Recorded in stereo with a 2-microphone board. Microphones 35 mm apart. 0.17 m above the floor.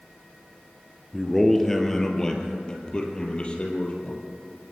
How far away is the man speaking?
About 3 m.